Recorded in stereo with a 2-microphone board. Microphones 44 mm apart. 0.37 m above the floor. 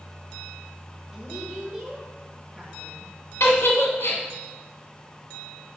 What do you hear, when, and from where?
1.1 s a woman speaking: 10° right (ahead or behind), 2.0 m
3.4 s a giggle: 75° left (ahead or behind), 1.6 m